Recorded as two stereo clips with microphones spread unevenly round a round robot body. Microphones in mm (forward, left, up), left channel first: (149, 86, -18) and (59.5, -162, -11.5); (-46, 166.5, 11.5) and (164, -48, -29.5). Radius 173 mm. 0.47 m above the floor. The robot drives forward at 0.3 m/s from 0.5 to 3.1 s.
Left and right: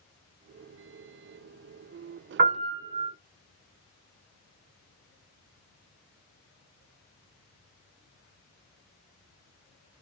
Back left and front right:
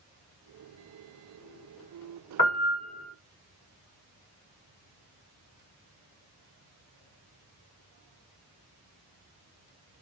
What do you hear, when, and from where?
2.4 s a piano: 155° right, 0.8 m; by 3.1 s 160° right, 1.0 m